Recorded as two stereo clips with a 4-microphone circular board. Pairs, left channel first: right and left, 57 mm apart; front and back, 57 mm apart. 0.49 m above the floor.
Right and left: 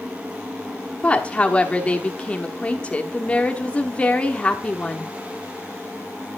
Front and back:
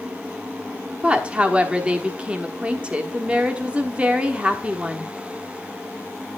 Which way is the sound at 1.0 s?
130° right.